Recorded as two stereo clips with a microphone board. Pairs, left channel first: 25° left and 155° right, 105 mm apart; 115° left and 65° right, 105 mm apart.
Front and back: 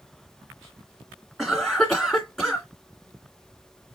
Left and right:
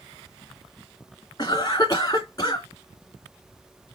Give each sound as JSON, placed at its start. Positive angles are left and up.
{"t": 1.4, "sound": "a cough", "azimuth_deg": 115, "distance_m": 2.0}